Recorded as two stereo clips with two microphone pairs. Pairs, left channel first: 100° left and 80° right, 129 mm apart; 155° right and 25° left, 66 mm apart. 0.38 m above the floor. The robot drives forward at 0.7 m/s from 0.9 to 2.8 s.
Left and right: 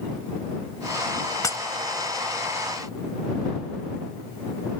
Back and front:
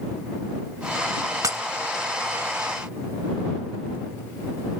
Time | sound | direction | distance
1.4 | breaking glass | 40° left | ?